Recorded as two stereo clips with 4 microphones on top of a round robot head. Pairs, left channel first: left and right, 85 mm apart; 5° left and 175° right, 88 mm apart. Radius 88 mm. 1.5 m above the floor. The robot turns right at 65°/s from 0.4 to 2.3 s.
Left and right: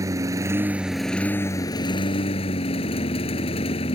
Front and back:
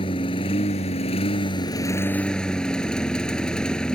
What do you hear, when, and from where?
0.0 s a lawn mower: 40° right; by 4.0 s 85° left